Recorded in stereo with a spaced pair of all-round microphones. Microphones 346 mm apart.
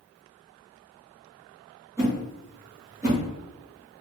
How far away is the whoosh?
About 1.5 m.